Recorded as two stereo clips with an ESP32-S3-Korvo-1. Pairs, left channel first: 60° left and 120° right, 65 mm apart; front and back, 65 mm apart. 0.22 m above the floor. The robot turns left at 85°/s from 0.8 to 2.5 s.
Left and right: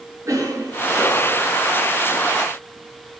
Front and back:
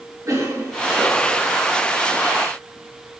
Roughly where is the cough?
Behind right.